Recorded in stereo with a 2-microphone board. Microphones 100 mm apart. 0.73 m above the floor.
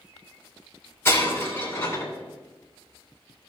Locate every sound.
1.1 s breaking glass: 25° left (ahead or behind), 3 m